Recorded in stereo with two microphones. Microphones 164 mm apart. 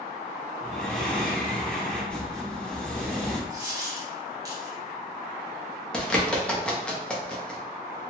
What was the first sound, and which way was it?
Breathing, 5° left (ahead or behind).